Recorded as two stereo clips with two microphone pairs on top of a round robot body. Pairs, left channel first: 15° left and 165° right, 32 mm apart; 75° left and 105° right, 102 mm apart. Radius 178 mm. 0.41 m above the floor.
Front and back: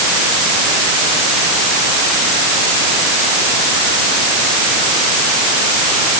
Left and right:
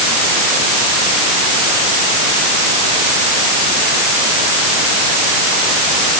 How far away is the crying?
No crying in this recording.